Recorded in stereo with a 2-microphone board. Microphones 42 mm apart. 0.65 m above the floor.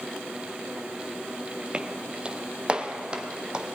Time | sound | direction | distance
1.7 | footsteps | 25° right (ahead or behind) | 0.9 m